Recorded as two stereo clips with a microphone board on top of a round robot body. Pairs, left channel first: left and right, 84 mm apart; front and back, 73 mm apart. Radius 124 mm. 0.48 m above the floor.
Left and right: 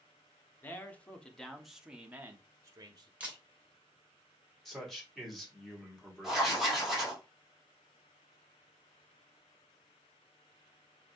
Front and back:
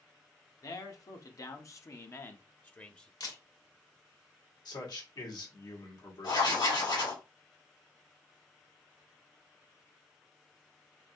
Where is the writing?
Straight ahead, 2.5 m.